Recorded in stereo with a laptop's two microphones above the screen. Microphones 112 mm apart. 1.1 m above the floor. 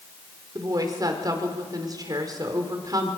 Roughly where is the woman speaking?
Right.